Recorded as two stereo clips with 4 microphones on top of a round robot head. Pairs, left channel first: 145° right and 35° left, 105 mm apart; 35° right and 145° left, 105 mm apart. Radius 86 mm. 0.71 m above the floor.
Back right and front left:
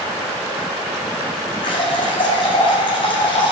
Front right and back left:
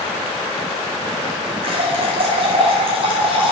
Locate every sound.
1.6 s a running tap: 175° left, 3 m